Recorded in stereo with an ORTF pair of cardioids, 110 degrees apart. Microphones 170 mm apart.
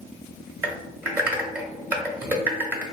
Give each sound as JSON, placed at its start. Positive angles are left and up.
{"t": 0.6, "sound": "typing on a keyboard", "azimuth_deg": -10, "distance_m": 1.1}